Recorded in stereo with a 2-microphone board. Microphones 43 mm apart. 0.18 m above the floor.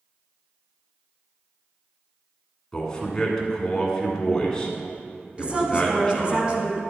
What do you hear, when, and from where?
2.7 s a man speaking: 15° left (ahead or behind), 1.5 m
5.4 s a woman speaking: 25° right (ahead or behind), 1.2 m